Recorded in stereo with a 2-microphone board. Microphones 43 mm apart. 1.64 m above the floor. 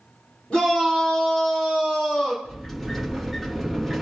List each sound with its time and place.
0.5 s a shout: 20° left (ahead or behind), 5.5 m; by 2.4 s 25° left (ahead or behind), 4.5 m
2.5 s a sliding door: centre (ahead or behind), 1.7 m